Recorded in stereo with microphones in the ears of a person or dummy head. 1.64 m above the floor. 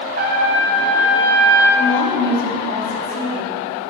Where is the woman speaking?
60° left (ahead or behind), 2.5 m.